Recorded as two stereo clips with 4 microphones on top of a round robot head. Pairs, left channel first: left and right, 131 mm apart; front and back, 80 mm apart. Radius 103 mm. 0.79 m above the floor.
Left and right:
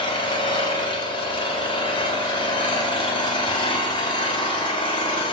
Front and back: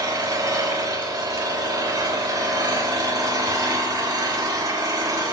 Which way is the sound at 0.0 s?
140° left.